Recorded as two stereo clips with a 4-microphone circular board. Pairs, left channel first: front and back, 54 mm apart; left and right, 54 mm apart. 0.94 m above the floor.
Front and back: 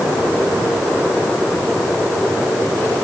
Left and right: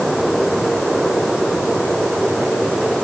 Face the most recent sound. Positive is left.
No sound to turn to.